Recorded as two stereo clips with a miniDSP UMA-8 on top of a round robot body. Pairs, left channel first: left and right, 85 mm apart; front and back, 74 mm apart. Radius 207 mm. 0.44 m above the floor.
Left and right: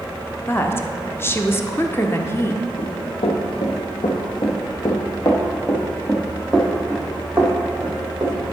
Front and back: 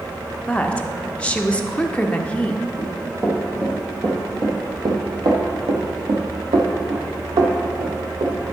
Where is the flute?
I don't hear a flute.